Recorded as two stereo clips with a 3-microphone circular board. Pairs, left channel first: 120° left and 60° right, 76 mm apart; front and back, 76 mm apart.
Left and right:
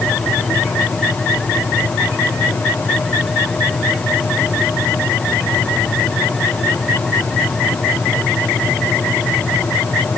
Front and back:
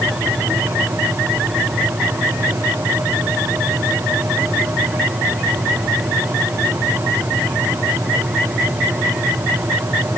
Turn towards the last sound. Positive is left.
No sound to turn to.